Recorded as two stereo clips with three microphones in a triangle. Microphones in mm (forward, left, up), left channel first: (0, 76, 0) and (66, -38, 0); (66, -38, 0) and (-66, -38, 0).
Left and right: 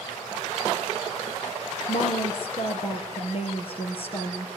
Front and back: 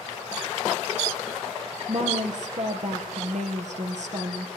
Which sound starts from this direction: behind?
A woman speaking, at 1.9 s.